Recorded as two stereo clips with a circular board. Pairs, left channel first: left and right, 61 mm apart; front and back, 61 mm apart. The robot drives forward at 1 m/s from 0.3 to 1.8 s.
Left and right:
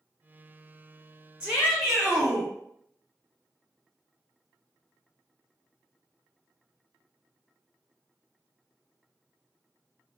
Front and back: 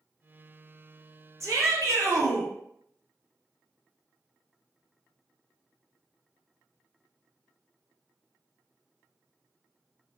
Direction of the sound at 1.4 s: 165° right.